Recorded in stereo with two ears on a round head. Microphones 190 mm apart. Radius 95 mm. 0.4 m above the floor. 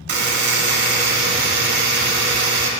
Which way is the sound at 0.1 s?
50° right (ahead or behind).